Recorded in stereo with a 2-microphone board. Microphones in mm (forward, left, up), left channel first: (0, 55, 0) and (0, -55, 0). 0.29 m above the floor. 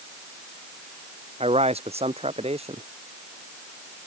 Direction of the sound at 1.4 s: 65° right (ahead or behind).